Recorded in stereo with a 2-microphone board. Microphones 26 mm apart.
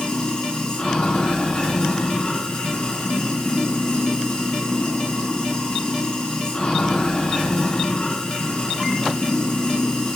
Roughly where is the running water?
Left.